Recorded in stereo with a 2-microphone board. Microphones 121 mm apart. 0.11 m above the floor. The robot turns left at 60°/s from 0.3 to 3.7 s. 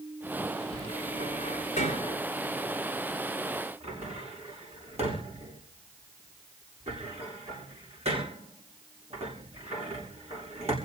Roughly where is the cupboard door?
Left.